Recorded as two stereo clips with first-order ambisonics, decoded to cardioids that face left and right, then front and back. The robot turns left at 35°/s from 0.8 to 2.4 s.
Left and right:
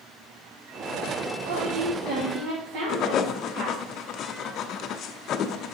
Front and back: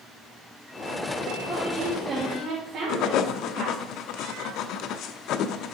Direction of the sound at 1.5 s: 95° right.